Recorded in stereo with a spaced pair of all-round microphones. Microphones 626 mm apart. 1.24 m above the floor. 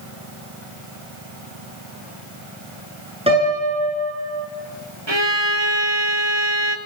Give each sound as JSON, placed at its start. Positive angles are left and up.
{"t": 3.3, "sound": "a piano", "side_deg": -10, "distance_m": 9.5}
{"t": 5.1, "sound": "a violin", "side_deg": -40, "distance_m": 1.8}